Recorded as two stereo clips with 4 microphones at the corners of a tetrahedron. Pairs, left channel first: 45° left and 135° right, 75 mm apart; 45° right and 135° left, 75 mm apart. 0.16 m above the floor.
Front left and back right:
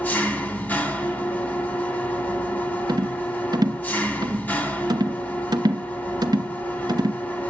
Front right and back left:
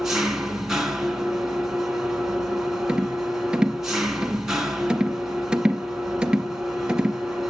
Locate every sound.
0.0 s an engine running: 60° left, 1.4 m
2.9 s a rattle: 150° right, 0.6 m